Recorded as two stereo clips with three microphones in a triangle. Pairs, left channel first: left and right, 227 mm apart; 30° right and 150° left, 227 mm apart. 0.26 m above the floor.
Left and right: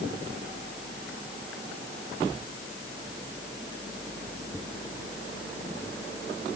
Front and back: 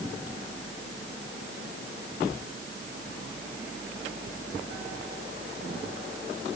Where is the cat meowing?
No cat meowing in this recording.